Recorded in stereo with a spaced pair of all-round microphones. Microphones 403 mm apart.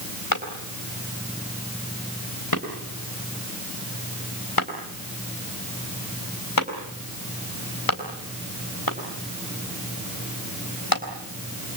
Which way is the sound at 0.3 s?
65° left (ahead or behind).